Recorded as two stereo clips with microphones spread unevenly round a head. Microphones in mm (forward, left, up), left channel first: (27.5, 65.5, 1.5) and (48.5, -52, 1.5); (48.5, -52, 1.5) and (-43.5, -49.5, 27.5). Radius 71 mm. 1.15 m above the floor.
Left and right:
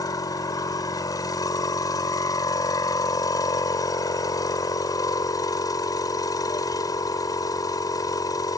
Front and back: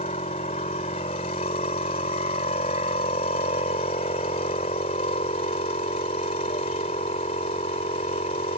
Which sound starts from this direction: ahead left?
A machine running, at 0.0 s.